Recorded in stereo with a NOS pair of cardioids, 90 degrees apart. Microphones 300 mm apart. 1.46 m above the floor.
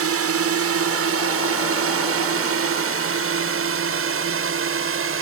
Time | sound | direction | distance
0.0 | a drone | 50° right | ?